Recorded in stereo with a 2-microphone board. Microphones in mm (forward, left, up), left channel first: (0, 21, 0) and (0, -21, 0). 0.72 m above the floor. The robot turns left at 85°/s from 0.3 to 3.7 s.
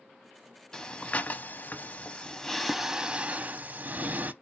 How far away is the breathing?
About 0.7 m.